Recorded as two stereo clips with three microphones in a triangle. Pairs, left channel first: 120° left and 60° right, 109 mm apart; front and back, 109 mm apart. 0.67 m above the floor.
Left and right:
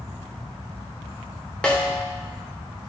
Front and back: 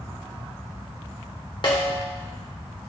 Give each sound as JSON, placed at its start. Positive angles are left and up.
{"t": 1.6, "sound": "a snare drum", "azimuth_deg": 40, "distance_m": 1.3}